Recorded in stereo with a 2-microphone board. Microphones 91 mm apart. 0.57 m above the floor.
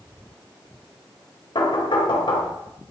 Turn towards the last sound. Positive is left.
turn(degrees=65)  # may be behind; listen again after turning